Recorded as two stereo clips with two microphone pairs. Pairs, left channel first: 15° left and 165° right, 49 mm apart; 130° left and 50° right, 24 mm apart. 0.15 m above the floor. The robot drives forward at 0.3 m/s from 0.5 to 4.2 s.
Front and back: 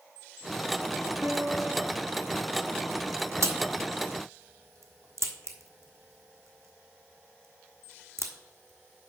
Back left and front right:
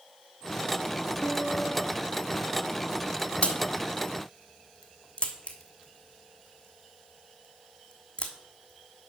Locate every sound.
1.2 s a piano: 175° right, 2.5 m; by 1.9 s straight behind, 3 m
3.4 s a crack: 175° left, 1.2 m